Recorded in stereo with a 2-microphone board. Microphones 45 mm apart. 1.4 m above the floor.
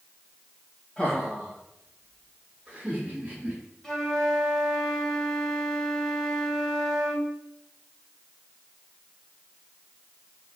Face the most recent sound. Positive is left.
turn(degrees=5)  # may be behind; listen again after turning